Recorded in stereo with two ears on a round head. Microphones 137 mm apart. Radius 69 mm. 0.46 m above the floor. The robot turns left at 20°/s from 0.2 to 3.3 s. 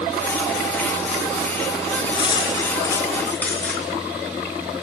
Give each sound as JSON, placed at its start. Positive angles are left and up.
{"t": 2.1, "sound": "cutlery clinking", "side_deg": 35, "distance_m": 3.5}